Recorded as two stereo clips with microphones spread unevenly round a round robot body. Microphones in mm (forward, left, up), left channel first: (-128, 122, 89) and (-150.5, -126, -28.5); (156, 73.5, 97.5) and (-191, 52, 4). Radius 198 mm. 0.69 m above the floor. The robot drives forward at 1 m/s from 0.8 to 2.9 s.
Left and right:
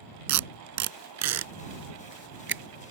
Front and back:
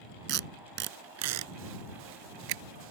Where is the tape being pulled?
110° right; by 2.6 s 145° right.